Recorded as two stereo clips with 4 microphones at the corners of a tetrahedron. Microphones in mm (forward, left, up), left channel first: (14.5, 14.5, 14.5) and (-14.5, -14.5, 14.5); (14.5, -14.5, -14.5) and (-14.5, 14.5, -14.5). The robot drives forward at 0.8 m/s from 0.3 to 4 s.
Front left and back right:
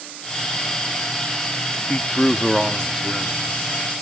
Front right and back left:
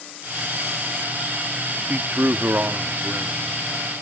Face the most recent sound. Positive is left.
turn(degrees=165)